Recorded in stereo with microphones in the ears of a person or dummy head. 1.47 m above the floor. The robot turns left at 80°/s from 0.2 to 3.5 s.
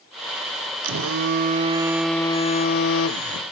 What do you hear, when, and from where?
0.8 s a phone buzzing: 85° right, 0.6 m; by 3.5 s 65° left, 0.6 m